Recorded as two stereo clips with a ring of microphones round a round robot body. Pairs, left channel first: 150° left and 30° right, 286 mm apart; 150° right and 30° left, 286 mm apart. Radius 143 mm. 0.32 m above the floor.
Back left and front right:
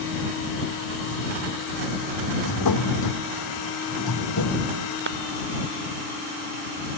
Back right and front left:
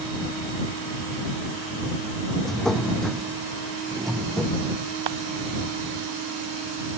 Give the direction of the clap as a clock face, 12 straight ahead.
11 o'clock.